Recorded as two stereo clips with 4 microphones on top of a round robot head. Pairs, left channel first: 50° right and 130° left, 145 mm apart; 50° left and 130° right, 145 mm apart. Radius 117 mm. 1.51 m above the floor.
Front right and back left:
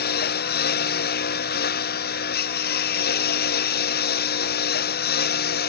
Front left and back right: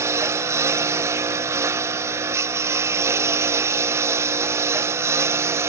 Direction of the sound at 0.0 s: 60° right.